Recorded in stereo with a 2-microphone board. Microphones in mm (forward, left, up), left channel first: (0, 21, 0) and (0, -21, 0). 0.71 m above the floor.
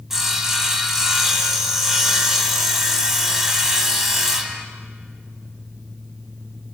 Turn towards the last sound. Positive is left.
turn(degrees=-5)  # may be behind; listen again after turning